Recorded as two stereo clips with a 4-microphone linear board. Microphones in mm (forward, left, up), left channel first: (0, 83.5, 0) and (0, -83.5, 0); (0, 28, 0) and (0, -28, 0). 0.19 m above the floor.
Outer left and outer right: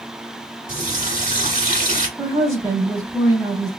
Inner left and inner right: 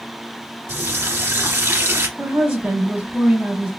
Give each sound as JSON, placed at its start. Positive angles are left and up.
{"t": 0.7, "sound": "a running tap", "side_deg": -50, "distance_m": 1.1}
{"t": 2.2, "sound": "a woman speaking", "side_deg": -20, "distance_m": 1.1}